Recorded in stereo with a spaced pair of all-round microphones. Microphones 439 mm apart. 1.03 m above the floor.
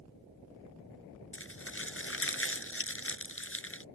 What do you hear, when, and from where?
1.3 s crumpling: 30° left (ahead or behind)